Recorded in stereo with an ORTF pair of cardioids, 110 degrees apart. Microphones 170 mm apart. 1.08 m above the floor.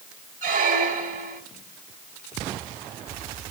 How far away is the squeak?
About 3.5 m.